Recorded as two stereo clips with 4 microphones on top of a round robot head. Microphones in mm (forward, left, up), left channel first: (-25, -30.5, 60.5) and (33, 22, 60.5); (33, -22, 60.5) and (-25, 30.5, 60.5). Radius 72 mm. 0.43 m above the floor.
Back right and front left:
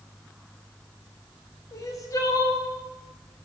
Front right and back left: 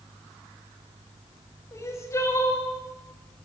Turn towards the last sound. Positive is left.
turn(degrees=-95)